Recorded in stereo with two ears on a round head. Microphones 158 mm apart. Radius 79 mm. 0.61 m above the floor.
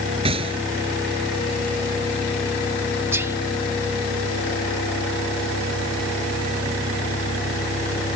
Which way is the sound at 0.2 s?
30° right (ahead or behind).